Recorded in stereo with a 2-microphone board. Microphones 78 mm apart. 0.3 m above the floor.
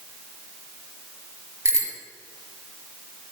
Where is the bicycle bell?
40° right (ahead or behind), 3.5 m.